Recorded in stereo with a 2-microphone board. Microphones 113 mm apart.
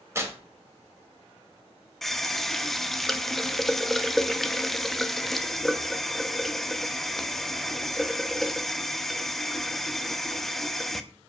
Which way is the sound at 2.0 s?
Centre (ahead or behind).